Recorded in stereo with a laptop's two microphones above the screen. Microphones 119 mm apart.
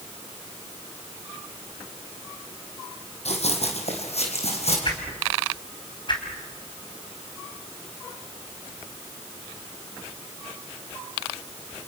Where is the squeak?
I don't hear a squeak.